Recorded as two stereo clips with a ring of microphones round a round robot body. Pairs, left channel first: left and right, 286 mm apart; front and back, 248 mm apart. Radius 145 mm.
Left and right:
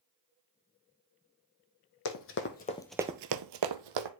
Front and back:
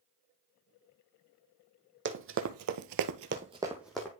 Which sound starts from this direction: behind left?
Running footsteps, at 2.0 s.